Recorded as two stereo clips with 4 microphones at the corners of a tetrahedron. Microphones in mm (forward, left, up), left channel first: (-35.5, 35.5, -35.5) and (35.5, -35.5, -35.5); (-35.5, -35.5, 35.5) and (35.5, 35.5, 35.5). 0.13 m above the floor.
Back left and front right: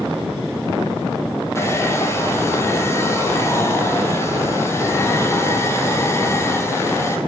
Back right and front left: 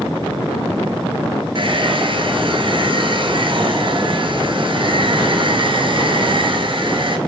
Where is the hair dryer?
75° left, 0.9 m.